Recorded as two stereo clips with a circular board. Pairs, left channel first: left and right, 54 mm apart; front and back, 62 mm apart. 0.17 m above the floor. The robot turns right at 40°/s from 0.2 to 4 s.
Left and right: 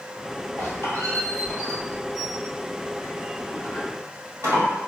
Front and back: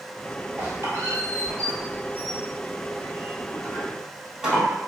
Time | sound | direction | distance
0.6 | a squeak | 120° left | 1.6 m